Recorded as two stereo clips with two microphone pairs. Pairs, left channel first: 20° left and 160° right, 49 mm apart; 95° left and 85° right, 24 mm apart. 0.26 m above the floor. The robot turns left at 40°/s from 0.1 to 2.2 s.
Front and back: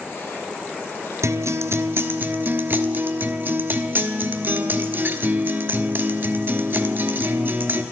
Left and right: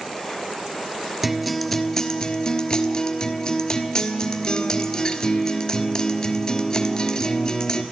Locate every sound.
1.2 s a guitar: 160° right, 1.0 m; by 7.8 s 160° left, 1.0 m